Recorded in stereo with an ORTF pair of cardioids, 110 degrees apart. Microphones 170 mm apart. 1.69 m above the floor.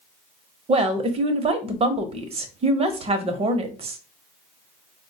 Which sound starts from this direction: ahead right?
A woman speaking, at 0.7 s.